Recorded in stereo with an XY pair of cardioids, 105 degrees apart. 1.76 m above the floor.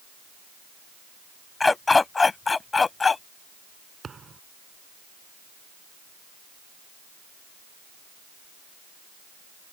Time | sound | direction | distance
1.6 | a dog barking | 25° left | ?
4.0 | a thud | 35° right | ?